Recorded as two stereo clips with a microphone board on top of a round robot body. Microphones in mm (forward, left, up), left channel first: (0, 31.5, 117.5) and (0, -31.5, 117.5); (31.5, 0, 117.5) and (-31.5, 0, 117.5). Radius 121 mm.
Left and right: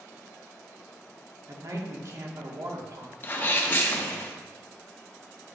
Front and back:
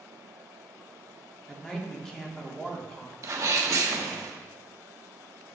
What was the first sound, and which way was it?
A man speaking, 80° right.